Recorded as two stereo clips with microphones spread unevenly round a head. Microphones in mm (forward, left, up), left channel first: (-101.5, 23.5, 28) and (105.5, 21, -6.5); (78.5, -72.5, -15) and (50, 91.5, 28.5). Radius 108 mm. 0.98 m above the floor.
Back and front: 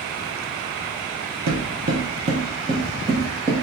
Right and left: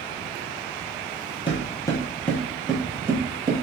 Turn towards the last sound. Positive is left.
turn(degrees=85)